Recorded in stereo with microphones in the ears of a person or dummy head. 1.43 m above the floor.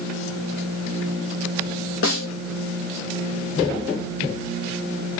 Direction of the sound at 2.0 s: 60° left (ahead or behind).